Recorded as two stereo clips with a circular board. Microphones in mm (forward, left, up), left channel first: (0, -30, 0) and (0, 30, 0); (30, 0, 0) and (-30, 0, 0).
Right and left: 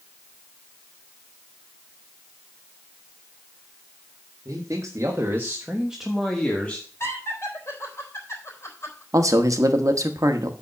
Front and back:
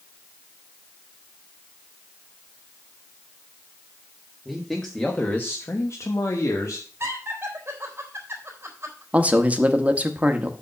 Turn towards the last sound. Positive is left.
turn(degrees=110)